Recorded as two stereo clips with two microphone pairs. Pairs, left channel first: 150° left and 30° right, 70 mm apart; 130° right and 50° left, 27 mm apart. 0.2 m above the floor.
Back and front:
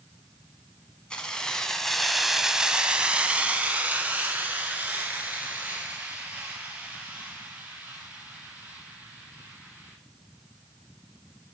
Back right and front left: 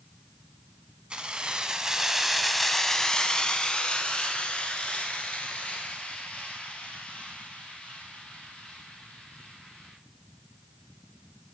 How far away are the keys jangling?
About 1.1 m.